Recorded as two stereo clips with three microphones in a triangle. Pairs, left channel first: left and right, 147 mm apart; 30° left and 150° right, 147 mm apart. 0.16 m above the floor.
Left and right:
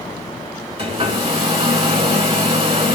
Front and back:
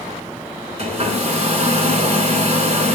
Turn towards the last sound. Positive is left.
turn(degrees=-130)